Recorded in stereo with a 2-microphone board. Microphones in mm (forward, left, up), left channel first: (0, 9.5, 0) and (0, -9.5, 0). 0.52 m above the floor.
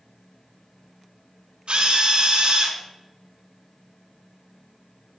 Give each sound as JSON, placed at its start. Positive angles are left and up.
{"t": 1.7, "sound": "a drill", "side_deg": -70, "distance_m": 4.0}